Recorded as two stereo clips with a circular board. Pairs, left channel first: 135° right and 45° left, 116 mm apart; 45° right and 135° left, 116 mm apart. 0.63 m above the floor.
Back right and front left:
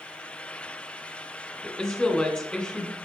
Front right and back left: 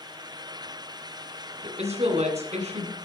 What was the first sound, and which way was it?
A woman speaking, 140° left.